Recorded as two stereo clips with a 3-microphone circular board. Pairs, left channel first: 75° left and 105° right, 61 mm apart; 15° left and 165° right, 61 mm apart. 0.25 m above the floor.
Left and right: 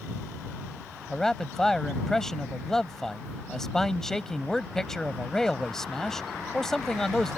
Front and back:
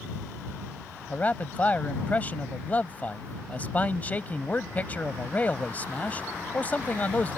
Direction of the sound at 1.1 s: Straight ahead.